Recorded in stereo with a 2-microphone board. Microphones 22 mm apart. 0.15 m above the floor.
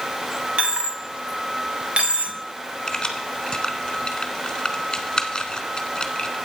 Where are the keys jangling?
30° left (ahead or behind), 1.3 m.